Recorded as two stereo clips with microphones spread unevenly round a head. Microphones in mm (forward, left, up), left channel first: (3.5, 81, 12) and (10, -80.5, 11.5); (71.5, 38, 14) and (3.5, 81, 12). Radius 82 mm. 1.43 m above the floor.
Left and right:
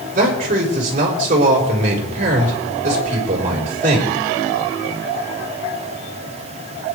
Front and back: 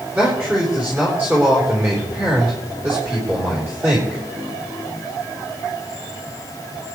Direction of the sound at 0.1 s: 135° right.